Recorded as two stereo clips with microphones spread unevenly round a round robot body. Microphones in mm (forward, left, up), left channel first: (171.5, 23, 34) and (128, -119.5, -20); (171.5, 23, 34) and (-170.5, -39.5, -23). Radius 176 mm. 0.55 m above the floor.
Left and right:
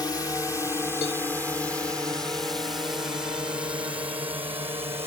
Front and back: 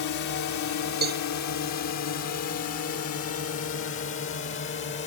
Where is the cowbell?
125° left.